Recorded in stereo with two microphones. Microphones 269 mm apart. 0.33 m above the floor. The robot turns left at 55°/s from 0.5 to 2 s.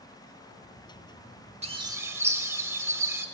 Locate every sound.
1.6 s a bird: 25° right (ahead or behind), 0.7 m; by 3.2 s 10° right (ahead or behind), 0.7 m